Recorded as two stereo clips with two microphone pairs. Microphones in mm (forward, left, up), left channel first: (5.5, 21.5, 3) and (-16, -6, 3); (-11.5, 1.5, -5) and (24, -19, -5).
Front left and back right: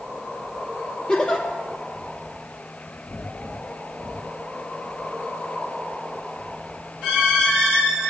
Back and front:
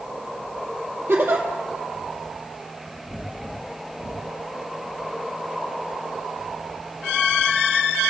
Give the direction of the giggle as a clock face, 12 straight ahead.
12 o'clock.